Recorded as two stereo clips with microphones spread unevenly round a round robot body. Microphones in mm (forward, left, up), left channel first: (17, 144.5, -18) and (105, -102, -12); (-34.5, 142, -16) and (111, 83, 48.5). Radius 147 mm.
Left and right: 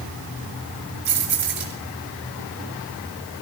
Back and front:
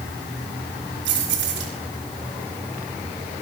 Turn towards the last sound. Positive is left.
turn(degrees=-25)